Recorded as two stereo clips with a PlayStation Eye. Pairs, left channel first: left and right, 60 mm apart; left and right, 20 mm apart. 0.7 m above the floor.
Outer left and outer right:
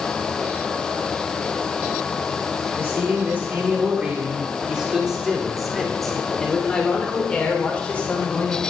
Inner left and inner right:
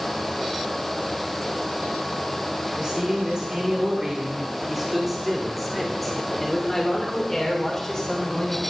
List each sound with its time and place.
2.8 s a man speaking: 40° right (ahead or behind), 2.5 m; by 8.6 s 25° left (ahead or behind), 3 m